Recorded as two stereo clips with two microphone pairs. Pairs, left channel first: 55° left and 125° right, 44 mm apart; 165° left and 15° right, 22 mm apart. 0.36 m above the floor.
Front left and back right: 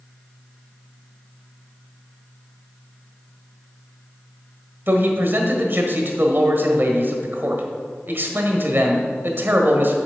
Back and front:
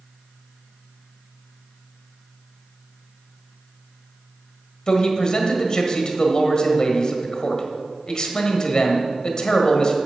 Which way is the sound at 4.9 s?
150° right.